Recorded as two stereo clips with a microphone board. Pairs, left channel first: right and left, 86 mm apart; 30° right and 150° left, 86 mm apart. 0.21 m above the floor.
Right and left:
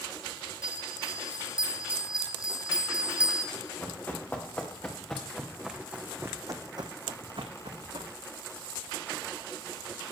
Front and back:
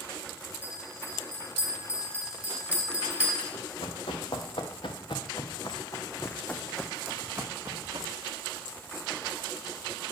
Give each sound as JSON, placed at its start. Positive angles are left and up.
{"t": 0.6, "sound": "a bell", "azimuth_deg": 140, "distance_m": 1.0}
{"t": 3.5, "sound": "running footsteps", "azimuth_deg": -25, "distance_m": 1.7}